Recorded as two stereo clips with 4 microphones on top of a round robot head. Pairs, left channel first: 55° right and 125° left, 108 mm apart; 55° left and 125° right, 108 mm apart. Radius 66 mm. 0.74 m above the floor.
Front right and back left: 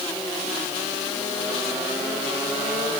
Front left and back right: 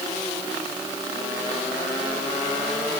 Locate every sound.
Only background noise.